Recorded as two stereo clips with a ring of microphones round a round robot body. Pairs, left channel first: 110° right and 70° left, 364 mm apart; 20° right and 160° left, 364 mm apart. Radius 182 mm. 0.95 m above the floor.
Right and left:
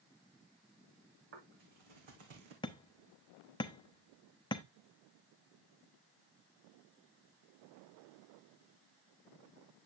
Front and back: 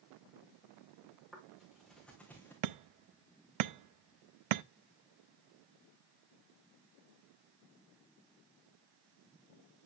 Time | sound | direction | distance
1.3 | footsteps | 65° left | 4 m
2.6 | hammering | 170° left | 0.6 m